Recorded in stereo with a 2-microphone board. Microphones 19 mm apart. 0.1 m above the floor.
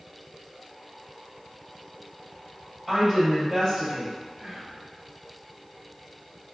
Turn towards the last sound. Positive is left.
turn(degrees=0)  # may be behind; listen again after turning